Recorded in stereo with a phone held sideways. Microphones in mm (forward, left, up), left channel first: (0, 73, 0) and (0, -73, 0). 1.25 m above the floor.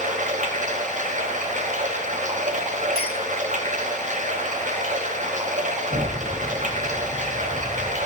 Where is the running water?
60° right (ahead or behind), 1.0 m.